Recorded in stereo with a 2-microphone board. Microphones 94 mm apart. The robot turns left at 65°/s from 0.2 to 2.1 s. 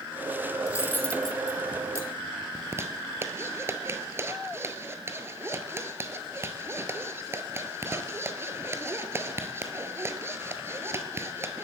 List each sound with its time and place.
0.7 s cutlery clinking: 35° left (ahead or behind), 1.2 m; by 2.5 s 35° right (ahead or behind), 1.2 m
2.5 s a zipper: 25° right (ahead or behind), 1.3 m